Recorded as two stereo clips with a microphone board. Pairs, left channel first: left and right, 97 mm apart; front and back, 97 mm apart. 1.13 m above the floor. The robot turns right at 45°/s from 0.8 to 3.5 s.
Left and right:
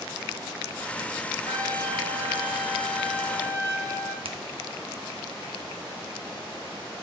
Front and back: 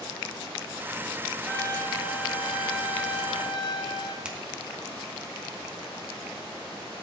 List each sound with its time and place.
1.5 s a trumpet: 65° right, 1.5 m; by 4.2 s 30° left, 1.5 m
4.2 s a finger snap: 100° right, 1.2 m